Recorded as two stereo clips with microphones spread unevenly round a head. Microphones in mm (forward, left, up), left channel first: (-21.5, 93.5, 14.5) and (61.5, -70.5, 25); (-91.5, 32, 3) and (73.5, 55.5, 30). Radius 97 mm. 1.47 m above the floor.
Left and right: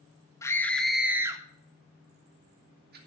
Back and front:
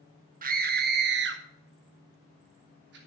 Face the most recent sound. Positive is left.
turn(degrees=-30)